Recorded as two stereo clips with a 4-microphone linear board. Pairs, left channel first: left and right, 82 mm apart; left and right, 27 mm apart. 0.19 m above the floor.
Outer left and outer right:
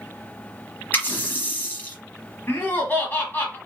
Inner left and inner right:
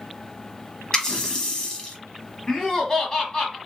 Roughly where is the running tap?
Left.